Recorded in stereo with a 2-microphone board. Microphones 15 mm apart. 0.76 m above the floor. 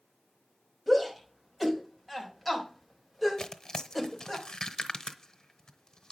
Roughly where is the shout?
Centre.